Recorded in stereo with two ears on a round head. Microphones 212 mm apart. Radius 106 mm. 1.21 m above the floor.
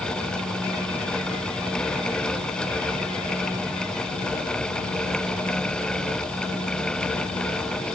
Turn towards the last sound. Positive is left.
No sound to turn to.